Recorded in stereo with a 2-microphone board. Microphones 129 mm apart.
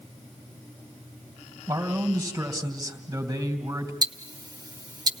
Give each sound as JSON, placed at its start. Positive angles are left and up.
{"t": 1.7, "sound": "a man speaking", "side_deg": -25, "distance_m": 3.0}
{"t": 4.0, "sound": "ticking", "side_deg": -30, "distance_m": 0.8}